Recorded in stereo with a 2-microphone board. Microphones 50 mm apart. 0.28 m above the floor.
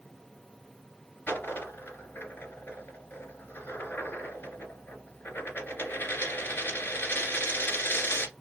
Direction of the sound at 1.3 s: 45° left (ahead or behind).